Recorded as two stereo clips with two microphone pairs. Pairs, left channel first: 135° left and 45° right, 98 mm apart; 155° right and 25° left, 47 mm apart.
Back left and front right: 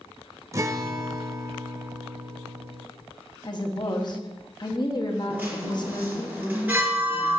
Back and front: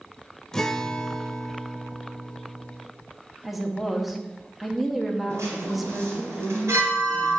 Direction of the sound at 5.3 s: 25° left.